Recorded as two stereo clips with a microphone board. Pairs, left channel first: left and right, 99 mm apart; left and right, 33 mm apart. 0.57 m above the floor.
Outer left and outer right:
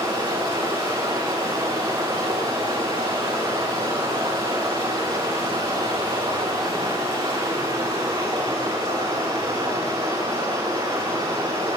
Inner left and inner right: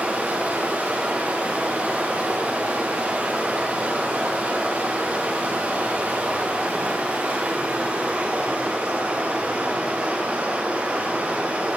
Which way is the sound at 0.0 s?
50° right (ahead or behind).